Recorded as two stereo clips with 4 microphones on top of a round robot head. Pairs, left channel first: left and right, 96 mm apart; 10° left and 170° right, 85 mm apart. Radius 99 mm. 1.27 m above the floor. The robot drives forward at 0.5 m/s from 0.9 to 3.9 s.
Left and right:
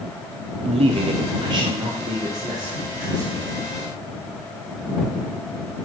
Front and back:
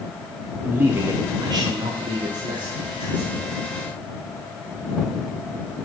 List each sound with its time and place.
0.7 s a man speaking: 100° right, 0.6 m; by 3.5 s 160° right, 1.5 m